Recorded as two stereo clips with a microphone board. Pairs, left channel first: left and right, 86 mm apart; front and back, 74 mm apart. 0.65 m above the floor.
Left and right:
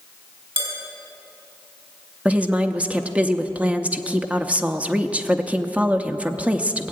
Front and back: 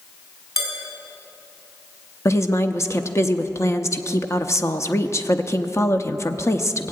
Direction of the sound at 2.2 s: 20° right.